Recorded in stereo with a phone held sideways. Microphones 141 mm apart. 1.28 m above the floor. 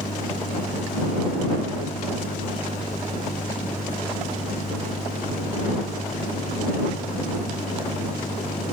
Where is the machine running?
85° left.